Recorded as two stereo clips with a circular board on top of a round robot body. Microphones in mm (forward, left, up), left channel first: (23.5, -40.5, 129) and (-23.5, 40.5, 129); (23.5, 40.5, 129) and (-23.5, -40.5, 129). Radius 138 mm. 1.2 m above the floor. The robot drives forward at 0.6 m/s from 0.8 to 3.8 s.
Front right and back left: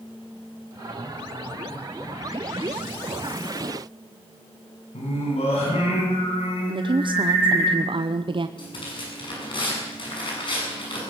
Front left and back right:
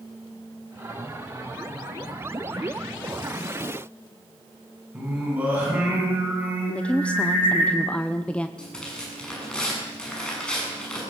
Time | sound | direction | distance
4.9 | singing | 45° right | 9 m
6.7 | a woman speaking | 135° left | 0.9 m
8.6 | tearing paper | 20° right | 7.5 m